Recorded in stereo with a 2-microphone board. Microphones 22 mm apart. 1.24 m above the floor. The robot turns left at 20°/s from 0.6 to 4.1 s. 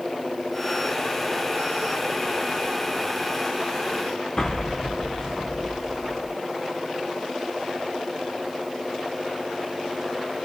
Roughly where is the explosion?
Left.